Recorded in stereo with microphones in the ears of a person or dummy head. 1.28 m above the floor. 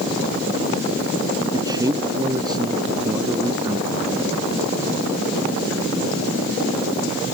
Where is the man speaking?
25° right (ahead or behind).